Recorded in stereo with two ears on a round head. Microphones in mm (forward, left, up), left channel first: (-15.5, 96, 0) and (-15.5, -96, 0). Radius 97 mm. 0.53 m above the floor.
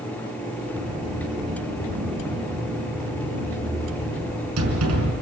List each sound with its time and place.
0.8 s a sliding door: 75° right (ahead or behind), 5 m